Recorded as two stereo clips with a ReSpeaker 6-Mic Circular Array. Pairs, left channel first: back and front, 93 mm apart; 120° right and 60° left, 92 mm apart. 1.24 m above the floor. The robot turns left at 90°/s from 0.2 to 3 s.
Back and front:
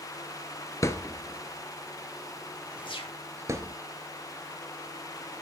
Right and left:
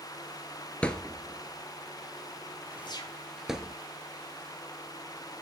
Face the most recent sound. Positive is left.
turn(degrees=-165)